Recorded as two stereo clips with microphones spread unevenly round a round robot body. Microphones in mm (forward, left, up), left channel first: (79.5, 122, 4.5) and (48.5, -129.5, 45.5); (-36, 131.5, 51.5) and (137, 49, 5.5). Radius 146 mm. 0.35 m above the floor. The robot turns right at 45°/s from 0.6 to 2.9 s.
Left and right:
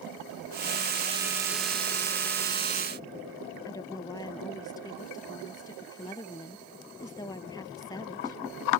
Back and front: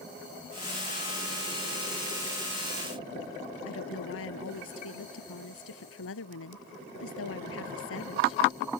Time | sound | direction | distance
3.6 | a woman speaking | 160° left | ?